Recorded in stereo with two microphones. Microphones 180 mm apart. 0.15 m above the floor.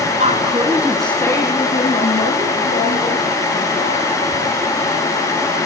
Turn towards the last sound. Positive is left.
turn(degrees=55)  # may be behind; listen again after turning